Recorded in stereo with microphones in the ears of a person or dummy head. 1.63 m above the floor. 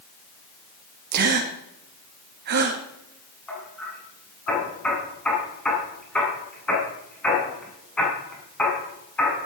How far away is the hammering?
About 8 m.